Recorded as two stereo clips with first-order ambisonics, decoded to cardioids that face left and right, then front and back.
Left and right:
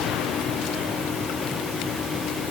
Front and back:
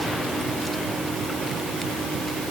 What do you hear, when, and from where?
Only background noise.